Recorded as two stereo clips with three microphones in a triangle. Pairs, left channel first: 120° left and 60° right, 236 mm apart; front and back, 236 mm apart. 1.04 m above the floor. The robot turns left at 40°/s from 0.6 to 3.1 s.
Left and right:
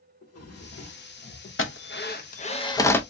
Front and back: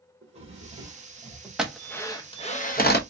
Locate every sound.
0.2 s a drawer: 120° left, 1.7 m; by 1.5 s 85° left, 1.7 m
1.6 s a drill: 95° left, 0.8 m; by 3.0 s 35° left, 0.8 m